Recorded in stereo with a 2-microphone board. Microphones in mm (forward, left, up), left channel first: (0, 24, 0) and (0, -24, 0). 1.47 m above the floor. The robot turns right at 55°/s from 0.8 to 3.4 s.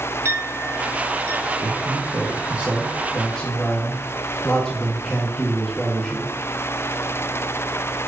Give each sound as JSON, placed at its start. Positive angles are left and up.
{"t": 0.2, "sound": "a clink", "side_deg": -65, "distance_m": 2.0}
{"t": 1.6, "sound": "a man speaking", "azimuth_deg": -80, "distance_m": 1.5}